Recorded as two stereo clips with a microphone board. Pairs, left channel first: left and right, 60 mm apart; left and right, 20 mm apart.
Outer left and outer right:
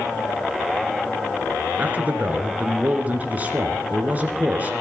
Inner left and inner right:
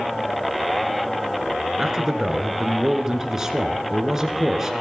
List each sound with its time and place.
1.8 s a man speaking: 30° right (ahead or behind), 2 m